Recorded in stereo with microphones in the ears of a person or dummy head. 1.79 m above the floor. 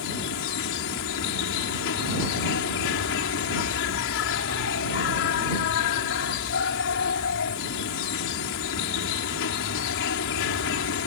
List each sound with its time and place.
0.0 s an insect: 75° left (ahead or behind)